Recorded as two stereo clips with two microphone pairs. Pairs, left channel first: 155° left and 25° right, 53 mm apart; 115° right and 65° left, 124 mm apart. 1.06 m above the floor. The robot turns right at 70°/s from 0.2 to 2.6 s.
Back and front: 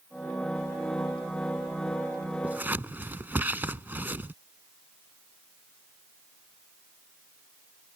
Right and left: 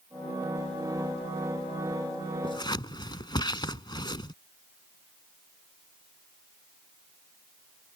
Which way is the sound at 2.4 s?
80° right.